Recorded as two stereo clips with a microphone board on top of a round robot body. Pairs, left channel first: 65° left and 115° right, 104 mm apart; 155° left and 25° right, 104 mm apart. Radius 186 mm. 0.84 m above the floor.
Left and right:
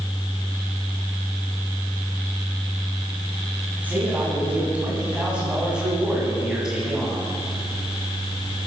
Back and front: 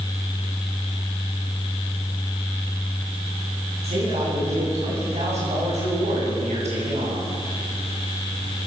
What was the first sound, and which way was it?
A man speaking, 35° right.